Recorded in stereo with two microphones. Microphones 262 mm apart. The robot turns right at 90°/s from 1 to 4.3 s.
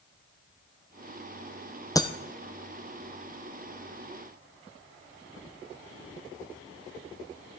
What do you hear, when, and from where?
1.9 s breaking glass: 10° left (ahead or behind), 0.8 m; by 2.1 s 20° left (ahead or behind), 0.8 m